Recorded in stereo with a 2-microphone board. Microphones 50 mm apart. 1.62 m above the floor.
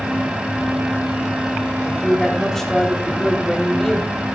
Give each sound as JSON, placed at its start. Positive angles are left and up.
{"t": 1.9, "sound": "a woman speaking", "side_deg": 10, "distance_m": 4.0}